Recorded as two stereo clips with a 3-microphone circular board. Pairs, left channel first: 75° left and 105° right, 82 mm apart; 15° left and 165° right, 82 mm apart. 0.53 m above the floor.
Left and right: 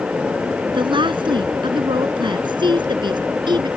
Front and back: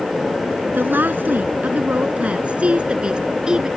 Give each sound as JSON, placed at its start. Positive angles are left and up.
{"t": 0.7, "sound": "a woman speaking", "azimuth_deg": -100}